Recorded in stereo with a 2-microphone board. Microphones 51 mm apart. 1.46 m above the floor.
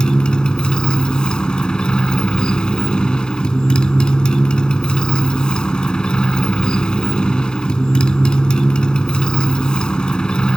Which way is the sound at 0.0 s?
15° left (ahead or behind).